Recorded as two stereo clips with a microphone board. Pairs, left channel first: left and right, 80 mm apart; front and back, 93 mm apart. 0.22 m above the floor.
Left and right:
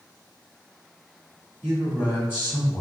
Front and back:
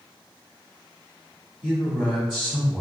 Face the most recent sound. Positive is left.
turn(degrees=100)